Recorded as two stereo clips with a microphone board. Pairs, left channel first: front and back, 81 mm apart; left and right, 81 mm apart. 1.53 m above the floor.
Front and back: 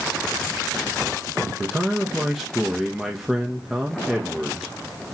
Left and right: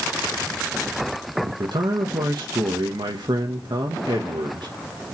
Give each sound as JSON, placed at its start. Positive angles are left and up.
{"t": 1.4, "sound": "a man speaking", "azimuth_deg": -95, "distance_m": 1.7}